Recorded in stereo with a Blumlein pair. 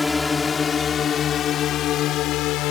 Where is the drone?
10° left; by 2.7 s 40° left.